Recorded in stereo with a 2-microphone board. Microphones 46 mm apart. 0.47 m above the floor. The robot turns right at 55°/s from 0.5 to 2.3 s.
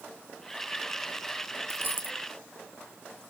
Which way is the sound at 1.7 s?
55° right (ahead or behind).